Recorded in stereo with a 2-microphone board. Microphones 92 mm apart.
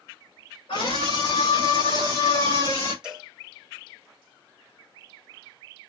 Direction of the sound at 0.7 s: 85° left.